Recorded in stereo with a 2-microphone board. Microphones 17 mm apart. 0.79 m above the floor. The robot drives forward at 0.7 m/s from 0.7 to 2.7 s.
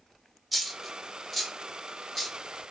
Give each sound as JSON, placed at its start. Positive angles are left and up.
{"t": 0.5, "sound": "a dropped coin", "side_deg": 0, "distance_m": 1.2}